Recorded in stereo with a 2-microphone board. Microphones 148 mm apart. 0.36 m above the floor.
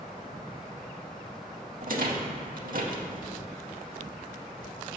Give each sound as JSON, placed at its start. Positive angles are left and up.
{"t": 1.8, "sound": "a rattle", "side_deg": -70, "distance_m": 0.7}